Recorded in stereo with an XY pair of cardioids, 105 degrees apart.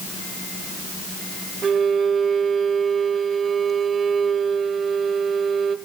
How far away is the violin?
About 1.1 m.